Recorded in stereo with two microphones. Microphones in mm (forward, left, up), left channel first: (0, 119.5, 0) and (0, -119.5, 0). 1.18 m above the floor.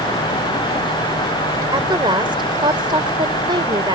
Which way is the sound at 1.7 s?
20° right (ahead or behind).